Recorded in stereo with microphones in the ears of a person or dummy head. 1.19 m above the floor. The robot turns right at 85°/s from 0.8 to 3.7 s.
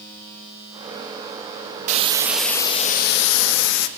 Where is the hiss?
45° right, 0.8 m; by 3.9 s 110° left, 0.8 m.